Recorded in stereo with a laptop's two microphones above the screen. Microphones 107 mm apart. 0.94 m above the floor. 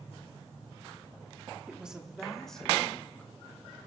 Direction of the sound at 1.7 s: 10° right (ahead or behind).